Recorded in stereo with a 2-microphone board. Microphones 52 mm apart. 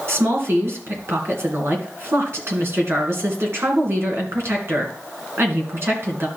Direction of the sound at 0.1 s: 55° right (ahead or behind).